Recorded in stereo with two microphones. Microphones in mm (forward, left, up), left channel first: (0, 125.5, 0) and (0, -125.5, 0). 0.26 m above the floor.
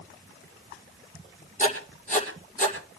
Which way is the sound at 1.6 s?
30° left (ahead or behind).